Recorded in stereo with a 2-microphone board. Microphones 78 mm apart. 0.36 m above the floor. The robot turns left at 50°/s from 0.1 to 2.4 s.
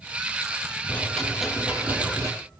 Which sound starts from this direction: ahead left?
A rattle, at 0.9 s.